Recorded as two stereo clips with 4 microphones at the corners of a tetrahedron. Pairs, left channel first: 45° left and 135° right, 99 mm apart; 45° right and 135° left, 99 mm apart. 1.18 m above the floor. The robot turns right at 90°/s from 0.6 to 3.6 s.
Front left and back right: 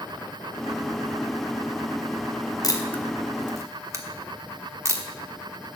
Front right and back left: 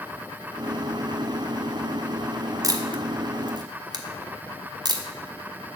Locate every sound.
2.6 s a camera shutter: 85° left, 1.1 m; by 5.0 s 170° left, 1.1 m